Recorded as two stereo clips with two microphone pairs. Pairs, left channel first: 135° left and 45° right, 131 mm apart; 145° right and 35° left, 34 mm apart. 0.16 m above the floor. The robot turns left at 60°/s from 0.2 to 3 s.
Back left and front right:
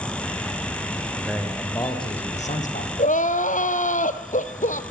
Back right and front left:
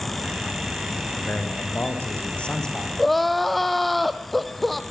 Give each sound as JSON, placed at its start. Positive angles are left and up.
{"t": 1.1, "sound": "a man speaking", "azimuth_deg": -125, "distance_m": 7.0}
{"t": 3.0, "sound": "crying", "azimuth_deg": 130, "distance_m": 1.9}